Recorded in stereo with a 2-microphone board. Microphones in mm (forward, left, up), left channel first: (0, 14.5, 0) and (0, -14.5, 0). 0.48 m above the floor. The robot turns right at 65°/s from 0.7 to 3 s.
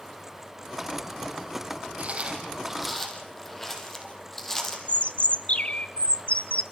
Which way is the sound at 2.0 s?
55° right (ahead or behind).